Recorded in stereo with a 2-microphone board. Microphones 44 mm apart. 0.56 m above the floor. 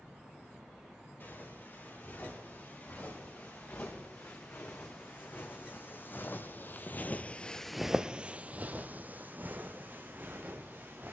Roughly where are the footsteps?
Left.